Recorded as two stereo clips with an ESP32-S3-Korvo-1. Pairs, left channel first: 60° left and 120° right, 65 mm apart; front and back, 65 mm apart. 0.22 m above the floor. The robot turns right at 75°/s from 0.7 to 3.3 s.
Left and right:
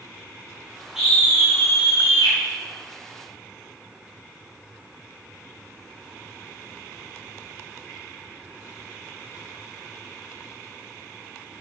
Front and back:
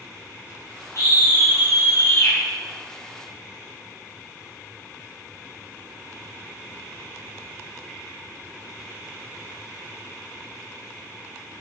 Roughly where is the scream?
Ahead right.